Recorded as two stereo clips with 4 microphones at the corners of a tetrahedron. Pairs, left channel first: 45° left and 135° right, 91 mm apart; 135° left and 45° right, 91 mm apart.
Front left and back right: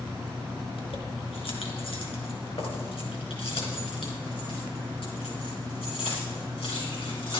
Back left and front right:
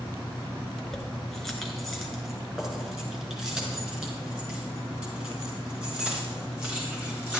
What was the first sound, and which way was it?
Keys jangling, 45° left.